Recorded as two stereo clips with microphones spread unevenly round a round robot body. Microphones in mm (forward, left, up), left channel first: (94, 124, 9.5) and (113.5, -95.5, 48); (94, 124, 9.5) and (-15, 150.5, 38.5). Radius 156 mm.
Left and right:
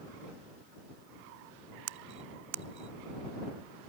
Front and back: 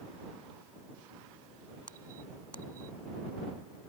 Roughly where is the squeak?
Right.